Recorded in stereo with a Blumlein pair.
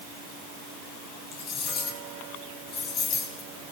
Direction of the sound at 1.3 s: 30° left.